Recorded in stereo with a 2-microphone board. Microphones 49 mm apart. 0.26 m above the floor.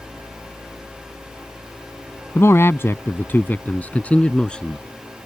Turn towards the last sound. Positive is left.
turn(degrees=15)  # may be behind; listen again after turning